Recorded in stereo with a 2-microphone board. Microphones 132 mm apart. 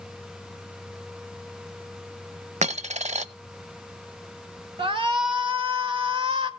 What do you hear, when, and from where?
2.6 s a dropped coin: 70° right (ahead or behind), 0.6 m
4.8 s a shout: 45° right (ahead or behind), 1.6 m